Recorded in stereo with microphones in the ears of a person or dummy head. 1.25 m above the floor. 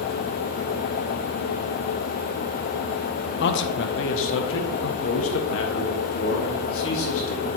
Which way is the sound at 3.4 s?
55° left (ahead or behind).